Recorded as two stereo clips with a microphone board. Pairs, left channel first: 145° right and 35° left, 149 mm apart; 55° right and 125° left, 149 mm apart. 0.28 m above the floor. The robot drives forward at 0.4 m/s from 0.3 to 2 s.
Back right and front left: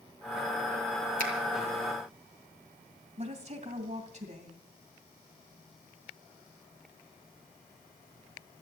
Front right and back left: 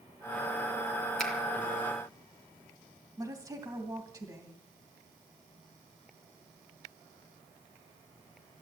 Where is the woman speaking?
60° left, 2.5 m.